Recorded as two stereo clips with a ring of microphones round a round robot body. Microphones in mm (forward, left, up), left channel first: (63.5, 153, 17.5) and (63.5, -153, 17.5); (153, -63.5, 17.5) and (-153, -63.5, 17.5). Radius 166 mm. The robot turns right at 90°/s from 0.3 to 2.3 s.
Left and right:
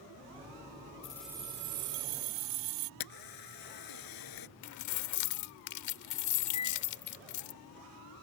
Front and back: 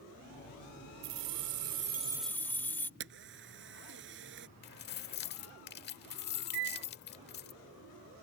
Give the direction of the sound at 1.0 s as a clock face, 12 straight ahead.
7 o'clock.